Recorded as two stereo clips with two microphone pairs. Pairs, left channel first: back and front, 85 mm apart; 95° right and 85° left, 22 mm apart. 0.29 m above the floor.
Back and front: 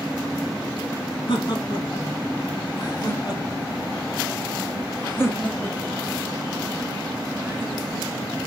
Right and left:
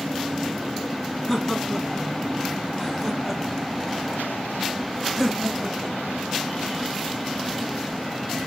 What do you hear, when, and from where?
1.3 s laughter: straight behind, 3 m; by 8.3 s 30° left, 1.7 m